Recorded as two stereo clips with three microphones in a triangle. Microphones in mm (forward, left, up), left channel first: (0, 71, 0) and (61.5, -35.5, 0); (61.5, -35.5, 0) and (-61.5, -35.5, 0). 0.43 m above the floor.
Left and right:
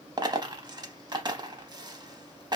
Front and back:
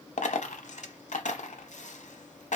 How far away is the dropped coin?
About 0.6 m.